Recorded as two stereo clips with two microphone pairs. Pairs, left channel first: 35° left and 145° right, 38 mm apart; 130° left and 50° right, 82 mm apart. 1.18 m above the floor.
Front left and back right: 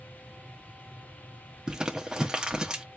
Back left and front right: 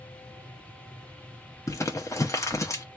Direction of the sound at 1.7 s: 155° left.